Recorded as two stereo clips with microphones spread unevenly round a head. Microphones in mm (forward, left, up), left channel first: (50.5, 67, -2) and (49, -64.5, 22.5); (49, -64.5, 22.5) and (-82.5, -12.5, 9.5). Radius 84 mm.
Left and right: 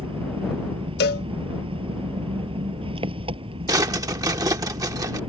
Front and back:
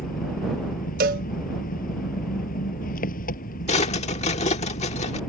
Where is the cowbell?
115° left.